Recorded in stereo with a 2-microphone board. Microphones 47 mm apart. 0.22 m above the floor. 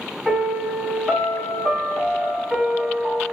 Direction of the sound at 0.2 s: 10° right (ahead or behind).